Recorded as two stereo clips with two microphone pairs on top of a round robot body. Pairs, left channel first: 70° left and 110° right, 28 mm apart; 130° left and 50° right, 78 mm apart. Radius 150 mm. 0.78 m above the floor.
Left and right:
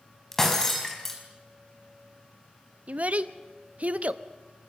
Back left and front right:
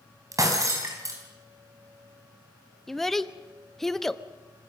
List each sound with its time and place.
0.3 s breaking glass: 5° right, 4.5 m
2.9 s a child speaking: 140° right, 1.1 m